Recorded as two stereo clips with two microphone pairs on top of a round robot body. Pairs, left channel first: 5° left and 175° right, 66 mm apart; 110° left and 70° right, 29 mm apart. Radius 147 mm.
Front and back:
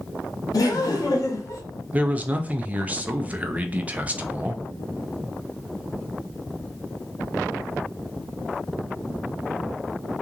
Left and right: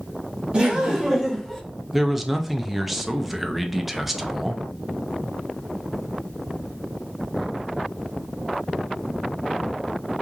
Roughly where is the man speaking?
Behind right.